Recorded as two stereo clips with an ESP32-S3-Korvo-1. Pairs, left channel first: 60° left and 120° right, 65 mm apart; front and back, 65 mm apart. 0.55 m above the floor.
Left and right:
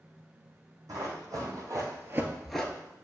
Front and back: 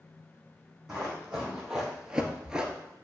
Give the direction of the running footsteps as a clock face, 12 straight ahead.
3 o'clock.